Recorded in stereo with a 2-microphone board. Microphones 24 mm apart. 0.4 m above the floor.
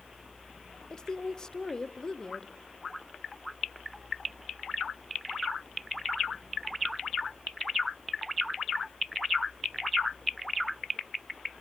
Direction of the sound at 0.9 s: 25° left (ahead or behind).